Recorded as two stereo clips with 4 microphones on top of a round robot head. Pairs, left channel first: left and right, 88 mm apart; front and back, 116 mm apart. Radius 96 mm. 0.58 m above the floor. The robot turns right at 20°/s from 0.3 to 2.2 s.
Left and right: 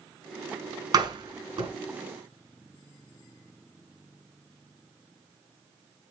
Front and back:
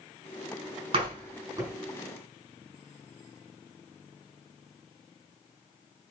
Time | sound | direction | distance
0.9 | a door slam | 125° right | 5 m